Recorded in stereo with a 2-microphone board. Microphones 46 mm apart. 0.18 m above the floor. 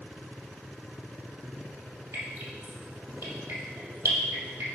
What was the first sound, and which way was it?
Dripping, 75° right (ahead or behind).